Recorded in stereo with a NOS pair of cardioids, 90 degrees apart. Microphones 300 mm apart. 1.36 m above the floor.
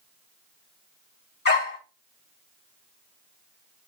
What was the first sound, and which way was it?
A dog barking, 35° left.